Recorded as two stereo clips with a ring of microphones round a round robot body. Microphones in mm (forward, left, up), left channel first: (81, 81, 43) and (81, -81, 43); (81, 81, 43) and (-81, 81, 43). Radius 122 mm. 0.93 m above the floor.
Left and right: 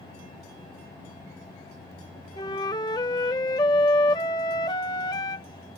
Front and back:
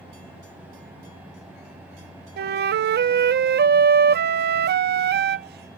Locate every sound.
2.4 s a flute: 165° left